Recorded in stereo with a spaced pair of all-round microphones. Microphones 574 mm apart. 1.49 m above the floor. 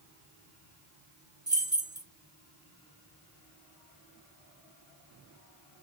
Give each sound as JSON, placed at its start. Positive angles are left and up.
{"t": 1.5, "sound": "keys jangling", "side_deg": -20, "distance_m": 1.0}